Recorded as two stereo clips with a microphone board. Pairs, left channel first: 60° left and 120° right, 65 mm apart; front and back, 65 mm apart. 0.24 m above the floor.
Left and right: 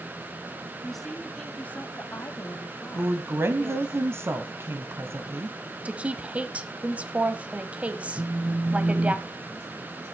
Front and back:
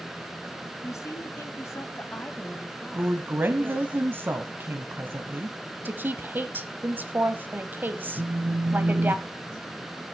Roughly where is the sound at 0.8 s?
Ahead right.